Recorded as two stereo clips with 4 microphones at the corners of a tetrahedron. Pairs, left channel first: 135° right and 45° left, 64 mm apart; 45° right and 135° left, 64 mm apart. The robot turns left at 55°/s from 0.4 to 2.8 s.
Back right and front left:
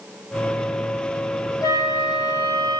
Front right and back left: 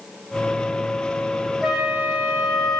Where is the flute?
135° right, 2.5 m; by 2.8 s 160° left, 2.5 m.